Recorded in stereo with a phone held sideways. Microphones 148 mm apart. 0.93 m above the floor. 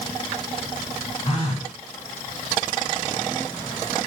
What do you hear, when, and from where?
1.2 s a phone buzzing: 45° left (ahead or behind), 1.1 m